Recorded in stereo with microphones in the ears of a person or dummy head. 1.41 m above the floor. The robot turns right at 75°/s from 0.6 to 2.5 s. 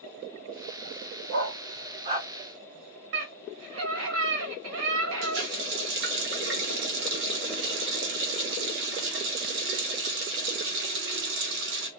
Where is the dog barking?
60° right (ahead or behind), 1.7 m; by 2.3 s 20° right (ahead or behind), 1.7 m.